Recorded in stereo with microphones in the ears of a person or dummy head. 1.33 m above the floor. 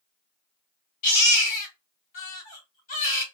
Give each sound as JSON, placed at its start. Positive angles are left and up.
{"t": 1.0, "sound": "a baby crying", "side_deg": 45, "distance_m": 1.4}